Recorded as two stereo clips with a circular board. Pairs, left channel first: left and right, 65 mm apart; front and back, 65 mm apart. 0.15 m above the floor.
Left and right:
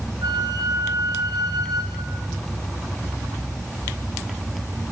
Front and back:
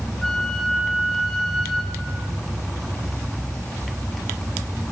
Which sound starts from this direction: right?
A flute, at 0.2 s.